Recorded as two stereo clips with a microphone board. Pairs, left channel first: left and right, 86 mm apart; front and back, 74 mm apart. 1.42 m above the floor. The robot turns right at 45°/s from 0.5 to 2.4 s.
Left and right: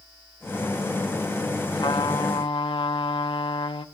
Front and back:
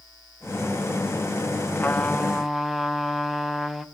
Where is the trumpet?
65° left, 1.1 m; by 3.9 s 90° left, 1.1 m.